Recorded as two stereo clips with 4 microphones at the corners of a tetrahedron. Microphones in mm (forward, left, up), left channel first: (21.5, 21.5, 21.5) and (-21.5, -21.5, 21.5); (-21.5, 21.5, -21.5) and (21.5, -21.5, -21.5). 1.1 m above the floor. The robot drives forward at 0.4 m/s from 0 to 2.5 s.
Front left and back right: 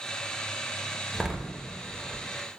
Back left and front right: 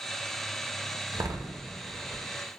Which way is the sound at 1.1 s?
45° right.